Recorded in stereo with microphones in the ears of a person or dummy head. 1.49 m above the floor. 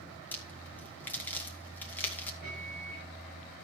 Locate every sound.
0.3 s a crack: 10° left (ahead or behind), 2 m
2.4 s a microwave: 55° right (ahead or behind), 5.5 m